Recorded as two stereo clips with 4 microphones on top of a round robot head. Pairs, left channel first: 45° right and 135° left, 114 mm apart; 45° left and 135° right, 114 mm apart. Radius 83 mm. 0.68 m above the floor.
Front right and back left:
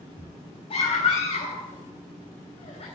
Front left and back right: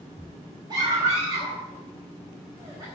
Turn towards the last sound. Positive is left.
turn(degrees=-80)